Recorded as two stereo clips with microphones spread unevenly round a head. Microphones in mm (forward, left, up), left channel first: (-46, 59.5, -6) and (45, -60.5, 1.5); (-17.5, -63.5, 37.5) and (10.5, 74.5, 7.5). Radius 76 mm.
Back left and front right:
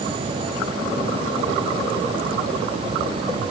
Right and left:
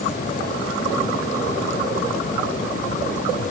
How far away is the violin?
No violin in this recording.